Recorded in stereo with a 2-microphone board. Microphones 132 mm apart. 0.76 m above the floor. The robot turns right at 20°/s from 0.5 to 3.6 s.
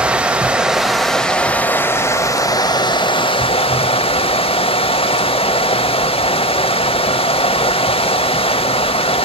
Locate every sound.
0.0 s running water: 10° right, 0.8 m; by 9.2 s 55° left, 0.8 m